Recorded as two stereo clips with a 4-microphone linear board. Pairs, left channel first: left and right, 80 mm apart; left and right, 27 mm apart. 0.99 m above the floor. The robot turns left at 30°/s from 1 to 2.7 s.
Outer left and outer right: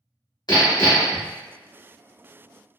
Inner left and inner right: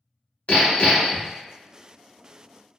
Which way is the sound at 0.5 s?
55° left (ahead or behind).